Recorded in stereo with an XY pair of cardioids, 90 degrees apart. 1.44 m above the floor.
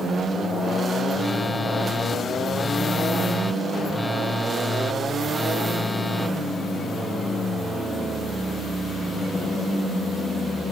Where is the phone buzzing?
15° left.